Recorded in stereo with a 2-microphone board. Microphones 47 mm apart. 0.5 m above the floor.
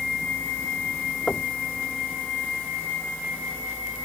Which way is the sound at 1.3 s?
20° left (ahead or behind).